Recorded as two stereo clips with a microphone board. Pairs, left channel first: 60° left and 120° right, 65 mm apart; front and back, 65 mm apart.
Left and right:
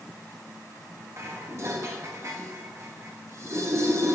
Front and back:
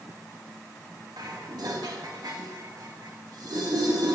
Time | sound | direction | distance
1.2 | dishes clattering | 165° right | 1.1 m